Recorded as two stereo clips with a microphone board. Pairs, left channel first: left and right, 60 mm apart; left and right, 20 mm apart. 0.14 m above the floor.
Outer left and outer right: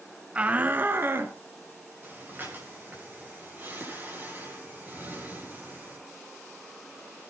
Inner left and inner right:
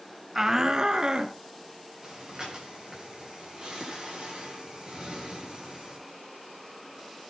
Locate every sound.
0.3 s a shout: 20° right (ahead or behind), 1.1 m; by 1.4 s 40° right (ahead or behind), 2 m
2.0 s breathing: 35° right (ahead or behind), 8.5 m